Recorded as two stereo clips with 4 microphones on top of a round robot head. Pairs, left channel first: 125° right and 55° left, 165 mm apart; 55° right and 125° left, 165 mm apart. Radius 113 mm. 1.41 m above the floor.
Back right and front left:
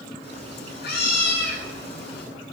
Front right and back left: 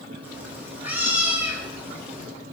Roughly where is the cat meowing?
Behind right.